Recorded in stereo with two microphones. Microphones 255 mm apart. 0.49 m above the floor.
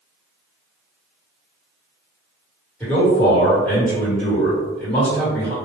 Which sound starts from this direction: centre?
A man speaking, at 2.8 s.